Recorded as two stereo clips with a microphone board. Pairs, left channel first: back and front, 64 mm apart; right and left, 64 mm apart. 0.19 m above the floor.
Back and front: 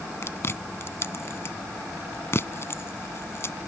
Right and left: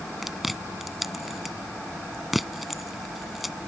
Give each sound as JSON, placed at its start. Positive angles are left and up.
{"t": 0.2, "sound": "chewing", "azimuth_deg": 180}